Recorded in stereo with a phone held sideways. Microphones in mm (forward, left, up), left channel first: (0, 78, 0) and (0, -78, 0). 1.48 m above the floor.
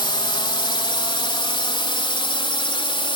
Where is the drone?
30° left (ahead or behind); by 3.2 s 35° left (ahead or behind).